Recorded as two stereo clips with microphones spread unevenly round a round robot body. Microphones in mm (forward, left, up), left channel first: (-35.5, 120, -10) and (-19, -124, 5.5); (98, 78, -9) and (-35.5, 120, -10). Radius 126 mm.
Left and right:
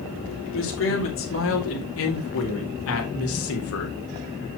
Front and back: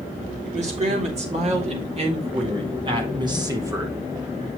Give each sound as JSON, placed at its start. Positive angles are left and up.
{"t": 0.5, "sound": "a man speaking", "azimuth_deg": 130, "distance_m": 3.0}